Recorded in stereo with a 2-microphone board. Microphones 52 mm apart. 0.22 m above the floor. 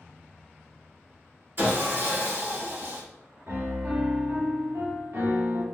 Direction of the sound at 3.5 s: 65° right (ahead or behind).